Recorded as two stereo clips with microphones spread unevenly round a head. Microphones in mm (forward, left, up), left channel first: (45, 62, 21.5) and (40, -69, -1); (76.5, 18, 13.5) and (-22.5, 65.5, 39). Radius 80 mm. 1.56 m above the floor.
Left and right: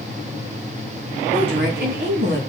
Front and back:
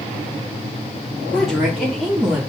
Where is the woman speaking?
115° right, 4.5 m; by 2.4 s 125° right, 4 m.